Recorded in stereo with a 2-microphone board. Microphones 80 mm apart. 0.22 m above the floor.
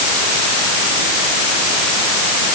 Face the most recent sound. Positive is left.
No sound to turn to.